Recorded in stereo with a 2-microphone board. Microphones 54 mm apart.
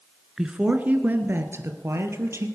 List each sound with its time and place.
0.4 s a woman speaking: 10° right (ahead or behind), 1.1 m; by 2.5 s 55° right (ahead or behind), 2.5 m